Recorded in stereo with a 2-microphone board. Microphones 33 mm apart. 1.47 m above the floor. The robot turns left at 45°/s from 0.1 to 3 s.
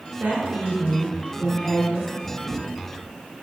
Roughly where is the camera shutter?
Left.